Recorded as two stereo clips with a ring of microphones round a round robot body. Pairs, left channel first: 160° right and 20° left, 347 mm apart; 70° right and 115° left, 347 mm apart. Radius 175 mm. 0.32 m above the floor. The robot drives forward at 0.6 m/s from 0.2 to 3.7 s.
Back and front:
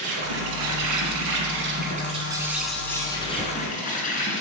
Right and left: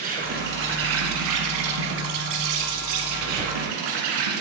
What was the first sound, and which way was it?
An insect, 45° left.